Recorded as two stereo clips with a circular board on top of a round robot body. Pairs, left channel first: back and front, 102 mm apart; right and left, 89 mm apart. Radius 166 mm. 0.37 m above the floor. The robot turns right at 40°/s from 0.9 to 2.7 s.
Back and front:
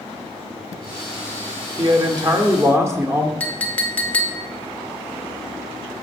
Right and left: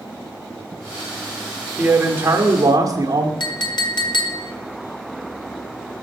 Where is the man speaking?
20° left, 1.4 m; by 3.3 s 55° left, 1.4 m.